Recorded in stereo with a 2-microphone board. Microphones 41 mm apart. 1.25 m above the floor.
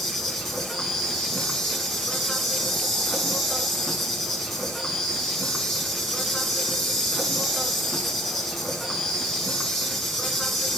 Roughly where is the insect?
Centre.